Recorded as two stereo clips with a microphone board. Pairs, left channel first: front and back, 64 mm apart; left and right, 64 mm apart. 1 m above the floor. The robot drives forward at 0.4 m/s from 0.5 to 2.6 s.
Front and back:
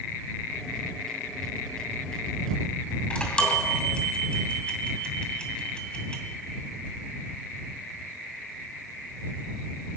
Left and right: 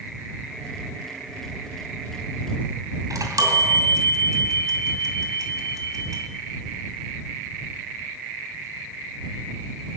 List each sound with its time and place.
3.1 s a chime: 70° right, 2.5 m